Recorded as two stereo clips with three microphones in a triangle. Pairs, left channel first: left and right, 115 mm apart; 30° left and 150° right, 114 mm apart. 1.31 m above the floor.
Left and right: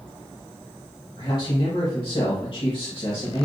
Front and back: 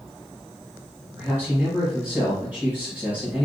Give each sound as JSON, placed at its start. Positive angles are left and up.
{"t": 1.2, "sound": "a man speaking", "azimuth_deg": 135, "distance_m": 1.6}